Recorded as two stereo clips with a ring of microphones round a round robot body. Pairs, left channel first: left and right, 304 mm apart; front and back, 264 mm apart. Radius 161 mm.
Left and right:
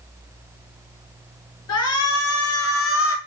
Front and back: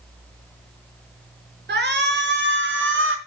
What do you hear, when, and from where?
1.7 s a shout: 130° left, 6 m; by 3.2 s 140° left, 4.5 m